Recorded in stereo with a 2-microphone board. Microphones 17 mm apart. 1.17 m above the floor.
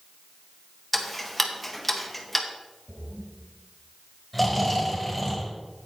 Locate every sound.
0.9 s ticking: centre (ahead or behind), 1.2 m
2.9 s a splash: 85° right, 4 m
4.3 s snoring: centre (ahead or behind), 3.5 m